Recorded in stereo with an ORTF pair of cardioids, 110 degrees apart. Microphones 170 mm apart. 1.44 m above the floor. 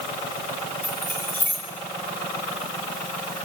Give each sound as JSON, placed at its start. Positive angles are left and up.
{"t": 0.8, "sound": "keys jangling", "azimuth_deg": 10, "distance_m": 6.5}